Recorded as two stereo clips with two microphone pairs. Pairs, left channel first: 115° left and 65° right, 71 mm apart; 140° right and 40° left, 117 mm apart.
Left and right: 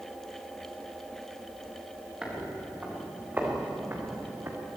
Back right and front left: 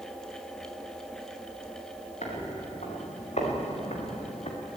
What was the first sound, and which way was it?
Footsteps, 140° right.